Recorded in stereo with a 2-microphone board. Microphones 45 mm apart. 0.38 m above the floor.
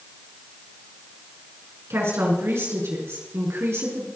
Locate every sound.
1.9 s a woman speaking: 75° right (ahead or behind), 5.5 m